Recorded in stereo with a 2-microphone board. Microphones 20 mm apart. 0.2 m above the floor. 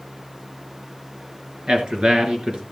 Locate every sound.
1.7 s a man speaking: 55° right (ahead or behind), 3 m